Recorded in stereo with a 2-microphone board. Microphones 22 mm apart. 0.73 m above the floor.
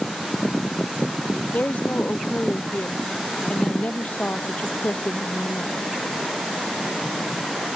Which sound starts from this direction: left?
A woman speaking, at 1.5 s.